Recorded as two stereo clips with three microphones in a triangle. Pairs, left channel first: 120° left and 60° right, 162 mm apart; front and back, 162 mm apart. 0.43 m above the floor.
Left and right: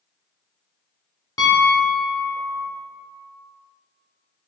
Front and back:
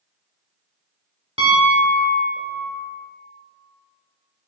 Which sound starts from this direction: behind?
A piano, at 1.4 s.